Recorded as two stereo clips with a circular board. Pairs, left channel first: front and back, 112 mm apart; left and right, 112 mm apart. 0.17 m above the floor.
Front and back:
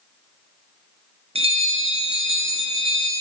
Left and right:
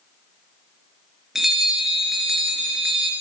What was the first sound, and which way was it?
A bell, 175° right.